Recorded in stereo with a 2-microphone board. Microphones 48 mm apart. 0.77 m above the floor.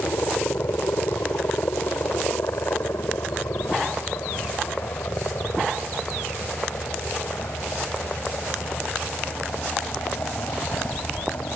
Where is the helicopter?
65° left (ahead or behind).